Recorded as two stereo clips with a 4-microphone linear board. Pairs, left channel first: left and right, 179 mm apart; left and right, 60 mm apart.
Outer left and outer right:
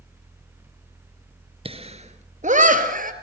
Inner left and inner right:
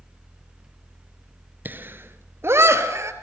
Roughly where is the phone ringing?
No phone ringing in this recording.